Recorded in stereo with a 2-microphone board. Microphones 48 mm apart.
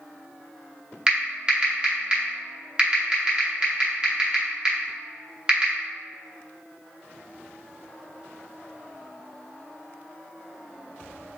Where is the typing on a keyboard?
20° right (ahead or behind), 0.8 m.